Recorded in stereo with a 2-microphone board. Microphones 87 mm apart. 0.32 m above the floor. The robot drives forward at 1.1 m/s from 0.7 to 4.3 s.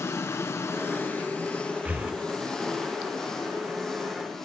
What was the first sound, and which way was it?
An engine running, 30° left (ahead or behind).